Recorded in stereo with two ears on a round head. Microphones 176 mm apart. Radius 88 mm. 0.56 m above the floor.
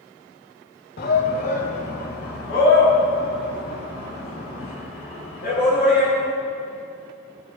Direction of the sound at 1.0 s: 50° left (ahead or behind).